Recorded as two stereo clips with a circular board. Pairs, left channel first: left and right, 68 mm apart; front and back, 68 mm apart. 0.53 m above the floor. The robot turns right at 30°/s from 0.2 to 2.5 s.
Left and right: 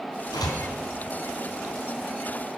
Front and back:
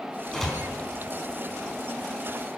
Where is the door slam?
85° left, 4 m; by 0.6 s 90° left, 4 m.